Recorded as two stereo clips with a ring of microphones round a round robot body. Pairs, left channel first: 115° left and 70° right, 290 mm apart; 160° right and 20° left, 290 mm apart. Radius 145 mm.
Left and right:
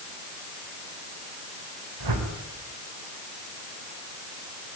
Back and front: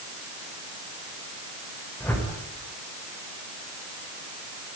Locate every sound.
2.0 s a whoosh: 75° right, 4.5 m